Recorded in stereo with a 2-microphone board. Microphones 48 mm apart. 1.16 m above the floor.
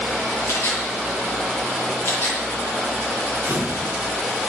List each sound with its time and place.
0.5 s a camera shutter: 55° left (ahead or behind), 9.5 m
3.4 s a camera shutter: 40° right (ahead or behind), 3 m